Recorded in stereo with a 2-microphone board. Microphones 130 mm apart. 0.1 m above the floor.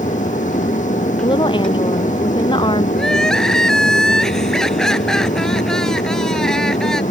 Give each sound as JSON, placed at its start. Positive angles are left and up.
{"t": 0.0, "sound": "an aircraft", "side_deg": 75}
{"t": 1.2, "sound": "a woman speaking", "side_deg": 40}
{"t": 3.0, "sound": "crying", "side_deg": 5}